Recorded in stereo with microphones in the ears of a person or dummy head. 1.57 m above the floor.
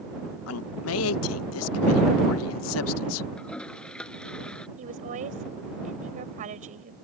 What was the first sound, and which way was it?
A man speaking, 70° left (ahead or behind).